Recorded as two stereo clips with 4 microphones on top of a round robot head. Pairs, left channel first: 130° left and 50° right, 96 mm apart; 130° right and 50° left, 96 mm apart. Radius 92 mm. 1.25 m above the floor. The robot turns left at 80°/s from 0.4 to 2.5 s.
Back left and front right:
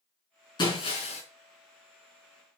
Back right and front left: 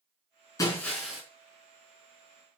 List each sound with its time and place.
0.6 s breaking glass: 175° left, 5 m; by 1.2 s 125° left, 5 m